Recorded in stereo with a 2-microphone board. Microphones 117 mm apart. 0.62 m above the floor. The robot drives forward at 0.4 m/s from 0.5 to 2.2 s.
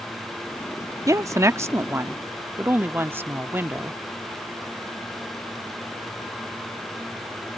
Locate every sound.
1.1 s a woman speaking: 30° right (ahead or behind); by 4.0 s 20° right (ahead or behind)